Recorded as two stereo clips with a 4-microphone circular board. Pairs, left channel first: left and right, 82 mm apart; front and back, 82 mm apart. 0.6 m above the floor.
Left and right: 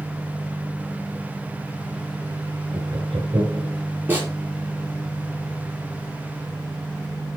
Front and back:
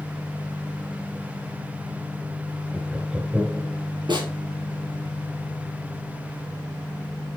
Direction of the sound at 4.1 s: 155° right.